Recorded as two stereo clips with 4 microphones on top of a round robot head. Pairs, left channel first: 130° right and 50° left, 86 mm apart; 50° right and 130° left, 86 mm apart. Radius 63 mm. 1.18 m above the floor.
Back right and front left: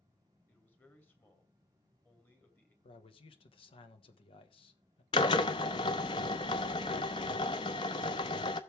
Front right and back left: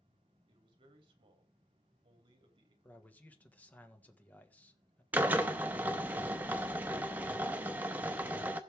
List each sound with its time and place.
0.5 s a man speaking: 160° left, 2.5 m
2.8 s a man speaking: 125° right, 1.6 m
5.1 s a drill: 165° right, 0.6 m